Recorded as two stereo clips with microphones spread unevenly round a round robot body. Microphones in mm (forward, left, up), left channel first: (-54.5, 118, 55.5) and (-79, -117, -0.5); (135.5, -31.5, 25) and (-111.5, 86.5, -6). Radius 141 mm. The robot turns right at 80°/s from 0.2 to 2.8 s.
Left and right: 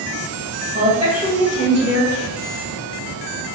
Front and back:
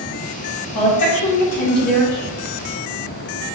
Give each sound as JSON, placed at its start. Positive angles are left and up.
{"t": 0.8, "sound": "a woman speaking", "azimuth_deg": -50, "distance_m": 1.2}